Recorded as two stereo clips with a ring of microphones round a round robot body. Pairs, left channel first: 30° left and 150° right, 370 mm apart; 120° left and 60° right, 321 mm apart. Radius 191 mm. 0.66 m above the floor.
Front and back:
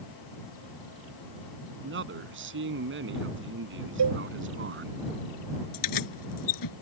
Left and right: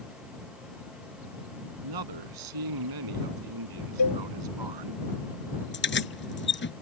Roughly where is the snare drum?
No snare drum in this recording.